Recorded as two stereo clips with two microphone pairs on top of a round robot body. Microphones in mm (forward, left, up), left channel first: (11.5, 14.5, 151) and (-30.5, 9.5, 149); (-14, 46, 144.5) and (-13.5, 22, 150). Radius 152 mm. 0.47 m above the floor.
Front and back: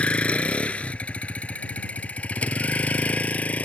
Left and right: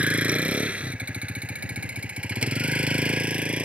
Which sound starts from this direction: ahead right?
A vehicle, at 0.0 s.